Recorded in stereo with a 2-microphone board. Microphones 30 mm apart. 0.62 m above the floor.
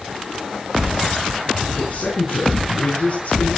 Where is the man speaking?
65° left (ahead or behind), 5.5 m; by 3.5 s 60° left (ahead or behind), 8 m.